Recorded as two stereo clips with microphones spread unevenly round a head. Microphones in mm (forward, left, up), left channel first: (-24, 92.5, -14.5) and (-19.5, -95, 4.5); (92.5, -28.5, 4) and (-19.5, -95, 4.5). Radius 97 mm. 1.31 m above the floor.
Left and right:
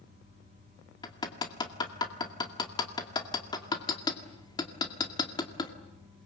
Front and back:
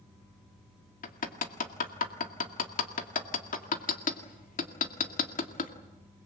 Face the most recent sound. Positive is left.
turn(degrees=20)